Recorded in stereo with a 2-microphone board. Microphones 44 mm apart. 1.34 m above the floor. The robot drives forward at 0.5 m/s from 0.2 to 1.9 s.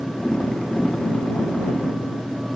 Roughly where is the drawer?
I don't hear a drawer.